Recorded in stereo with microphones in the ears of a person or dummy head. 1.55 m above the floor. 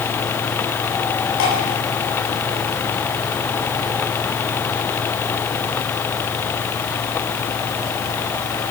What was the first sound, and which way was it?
Dripping, 85° left.